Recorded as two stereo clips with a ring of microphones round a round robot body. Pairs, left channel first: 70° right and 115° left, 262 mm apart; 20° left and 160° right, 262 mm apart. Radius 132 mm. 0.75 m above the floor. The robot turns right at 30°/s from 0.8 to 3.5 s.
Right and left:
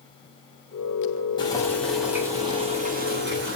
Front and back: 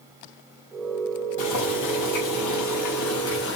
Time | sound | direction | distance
1.4 | boiling | 5° left | 5.5 m